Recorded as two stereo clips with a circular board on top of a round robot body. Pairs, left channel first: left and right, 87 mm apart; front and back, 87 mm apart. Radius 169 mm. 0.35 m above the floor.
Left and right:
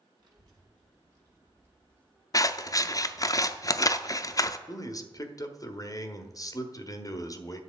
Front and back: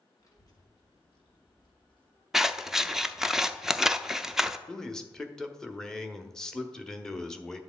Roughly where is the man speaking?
Left.